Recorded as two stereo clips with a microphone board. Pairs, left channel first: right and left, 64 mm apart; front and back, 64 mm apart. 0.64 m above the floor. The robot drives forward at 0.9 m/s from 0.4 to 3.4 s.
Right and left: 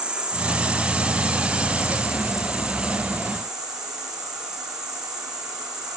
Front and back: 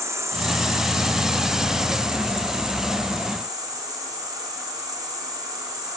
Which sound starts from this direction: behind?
An insect, at 0.0 s.